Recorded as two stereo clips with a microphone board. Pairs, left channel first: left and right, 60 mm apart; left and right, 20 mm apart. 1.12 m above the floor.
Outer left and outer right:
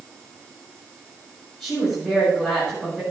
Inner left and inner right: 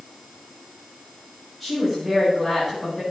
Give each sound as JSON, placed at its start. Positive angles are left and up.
{"t": 1.6, "sound": "a woman speaking", "side_deg": 10, "distance_m": 8.0}